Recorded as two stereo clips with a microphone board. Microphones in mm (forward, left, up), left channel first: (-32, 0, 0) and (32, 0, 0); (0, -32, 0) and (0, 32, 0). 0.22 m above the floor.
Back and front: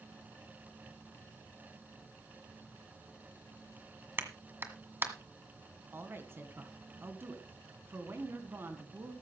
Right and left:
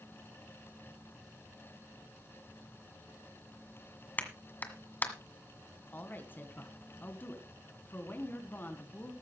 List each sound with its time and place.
4.2 s a clap: 40° right, 1.7 m
5.9 s a woman speaking: 40° right, 2 m